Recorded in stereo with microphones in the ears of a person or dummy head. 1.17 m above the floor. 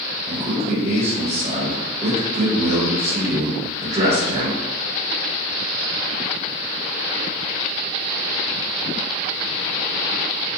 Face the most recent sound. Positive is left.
turn(degrees=-40)  # may be behind; listen again after turning